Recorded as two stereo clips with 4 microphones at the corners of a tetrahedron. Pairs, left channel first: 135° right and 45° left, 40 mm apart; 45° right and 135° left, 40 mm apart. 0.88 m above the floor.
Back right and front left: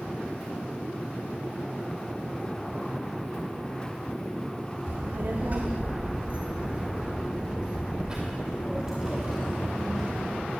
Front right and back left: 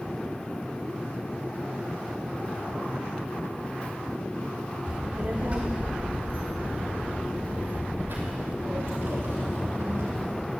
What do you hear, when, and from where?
4.9 s a child speaking: 70° left, 1.5 m; by 10.4 s 130° left, 3.5 m